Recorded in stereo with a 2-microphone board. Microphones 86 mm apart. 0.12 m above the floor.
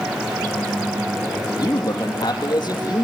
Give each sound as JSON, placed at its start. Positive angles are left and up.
{"t": 1.6, "sound": "a man speaking", "side_deg": 45, "distance_m": 3.5}